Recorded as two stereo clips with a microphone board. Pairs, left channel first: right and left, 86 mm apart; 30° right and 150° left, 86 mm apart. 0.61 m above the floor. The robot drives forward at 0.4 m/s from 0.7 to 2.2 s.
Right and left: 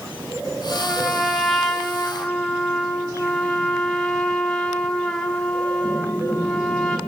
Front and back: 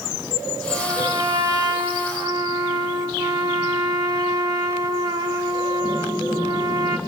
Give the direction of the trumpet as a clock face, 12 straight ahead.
6 o'clock.